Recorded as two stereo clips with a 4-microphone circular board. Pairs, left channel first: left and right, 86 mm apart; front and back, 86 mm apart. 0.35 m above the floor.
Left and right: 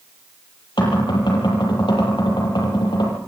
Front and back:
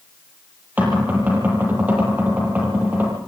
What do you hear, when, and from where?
0.8 s knocking: 110° left, 9.5 m